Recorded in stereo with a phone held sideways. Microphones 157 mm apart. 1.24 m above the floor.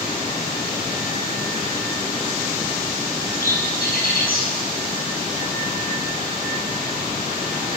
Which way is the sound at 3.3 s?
70° left (ahead or behind).